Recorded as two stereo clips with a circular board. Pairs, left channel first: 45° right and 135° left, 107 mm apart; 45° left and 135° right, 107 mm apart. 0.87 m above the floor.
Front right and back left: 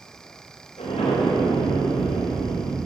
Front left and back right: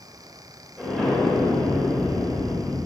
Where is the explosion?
40° right, 4 m.